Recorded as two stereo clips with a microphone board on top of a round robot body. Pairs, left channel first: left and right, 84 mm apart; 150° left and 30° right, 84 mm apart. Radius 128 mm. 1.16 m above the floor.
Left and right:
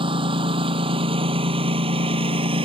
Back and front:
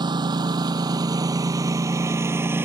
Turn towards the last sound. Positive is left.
turn(degrees=-100)